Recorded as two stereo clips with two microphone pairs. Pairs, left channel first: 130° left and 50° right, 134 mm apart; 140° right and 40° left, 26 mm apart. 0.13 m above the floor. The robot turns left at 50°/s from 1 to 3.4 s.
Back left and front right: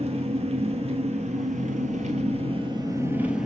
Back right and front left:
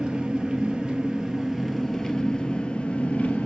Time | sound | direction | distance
0.0 | an engine running | 15° right | 1.3 m